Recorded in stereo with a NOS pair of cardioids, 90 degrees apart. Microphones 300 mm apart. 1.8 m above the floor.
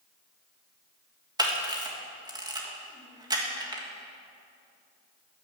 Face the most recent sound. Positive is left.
turn(degrees=-15)